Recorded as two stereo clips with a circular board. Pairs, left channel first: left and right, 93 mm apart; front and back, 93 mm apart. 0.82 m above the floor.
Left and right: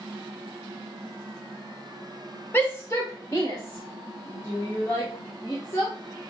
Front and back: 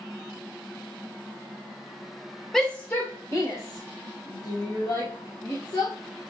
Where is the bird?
No bird in this recording.